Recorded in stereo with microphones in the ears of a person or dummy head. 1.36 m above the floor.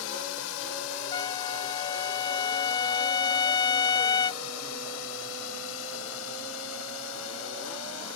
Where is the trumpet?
30° left (ahead or behind).